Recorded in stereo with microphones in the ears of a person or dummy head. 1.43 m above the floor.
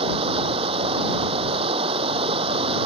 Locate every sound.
0.0 s running water: 35° right (ahead or behind)